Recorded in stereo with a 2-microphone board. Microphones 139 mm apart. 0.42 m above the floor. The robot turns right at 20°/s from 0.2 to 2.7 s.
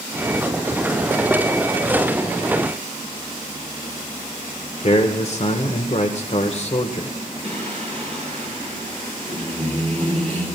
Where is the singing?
55° right (ahead or behind), 3 m.